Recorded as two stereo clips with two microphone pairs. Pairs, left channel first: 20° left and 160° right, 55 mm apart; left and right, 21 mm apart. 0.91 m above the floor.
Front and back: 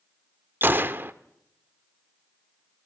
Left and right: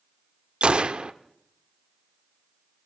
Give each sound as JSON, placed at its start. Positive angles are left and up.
{"t": 0.6, "sound": "a gunshot", "azimuth_deg": -115, "distance_m": 0.8}